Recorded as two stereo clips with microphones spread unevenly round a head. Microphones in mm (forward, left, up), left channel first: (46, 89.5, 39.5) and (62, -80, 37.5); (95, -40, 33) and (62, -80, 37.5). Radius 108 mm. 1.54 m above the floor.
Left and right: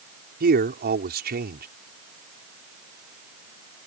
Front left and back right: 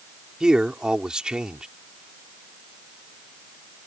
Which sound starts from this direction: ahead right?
A man speaking, at 0.4 s.